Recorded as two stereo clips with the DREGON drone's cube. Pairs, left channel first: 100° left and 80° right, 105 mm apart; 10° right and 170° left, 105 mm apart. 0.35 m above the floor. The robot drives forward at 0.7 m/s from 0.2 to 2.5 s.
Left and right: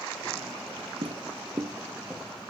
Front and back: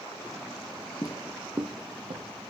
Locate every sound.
1.0 s footsteps: 60° right, 1.0 m; by 2.3 s 165° right, 2 m